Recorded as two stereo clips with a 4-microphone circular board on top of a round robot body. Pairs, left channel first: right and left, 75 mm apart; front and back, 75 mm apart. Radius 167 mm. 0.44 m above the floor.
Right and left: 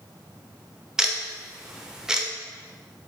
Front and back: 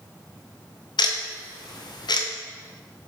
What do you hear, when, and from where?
1.0 s ticking: 10° left, 0.8 m